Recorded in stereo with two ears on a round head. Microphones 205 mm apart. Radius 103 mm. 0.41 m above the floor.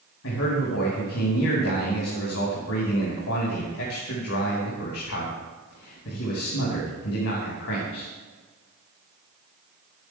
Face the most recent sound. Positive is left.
turn(degrees=65)  # may be behind; listen again after turning